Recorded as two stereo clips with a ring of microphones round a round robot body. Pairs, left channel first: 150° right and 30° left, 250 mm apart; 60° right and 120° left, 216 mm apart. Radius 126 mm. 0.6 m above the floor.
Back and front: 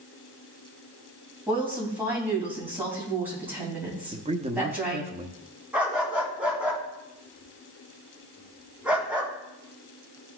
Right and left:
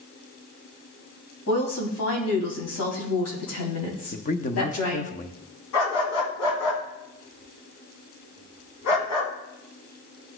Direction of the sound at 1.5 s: 55° right.